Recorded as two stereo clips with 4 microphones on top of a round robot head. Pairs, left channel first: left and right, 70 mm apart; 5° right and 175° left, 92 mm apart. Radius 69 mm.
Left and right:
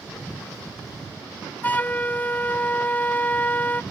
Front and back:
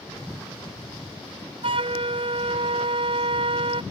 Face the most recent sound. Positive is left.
turn(degrees=155)